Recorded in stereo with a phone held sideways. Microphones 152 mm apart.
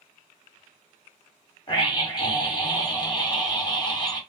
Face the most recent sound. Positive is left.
turn(degrees=30)  # may be behind; listen again after turning